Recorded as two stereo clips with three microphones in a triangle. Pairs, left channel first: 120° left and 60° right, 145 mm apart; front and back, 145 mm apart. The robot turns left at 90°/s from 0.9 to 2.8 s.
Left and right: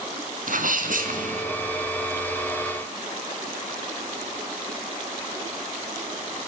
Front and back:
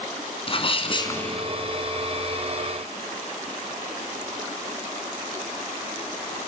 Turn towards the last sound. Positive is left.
turn(degrees=140)